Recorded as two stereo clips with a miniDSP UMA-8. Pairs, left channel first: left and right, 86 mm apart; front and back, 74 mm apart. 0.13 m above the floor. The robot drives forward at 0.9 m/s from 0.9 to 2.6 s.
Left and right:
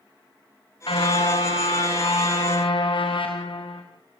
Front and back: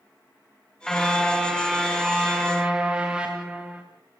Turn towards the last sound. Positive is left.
turn(degrees=105)